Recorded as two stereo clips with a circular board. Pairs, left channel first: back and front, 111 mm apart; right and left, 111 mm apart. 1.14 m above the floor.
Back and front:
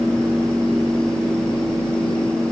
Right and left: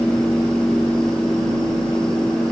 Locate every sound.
Only background noise.